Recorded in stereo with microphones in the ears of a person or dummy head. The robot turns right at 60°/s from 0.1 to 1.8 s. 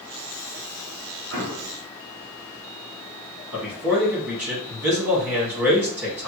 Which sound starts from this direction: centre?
A man speaking, at 3.5 s.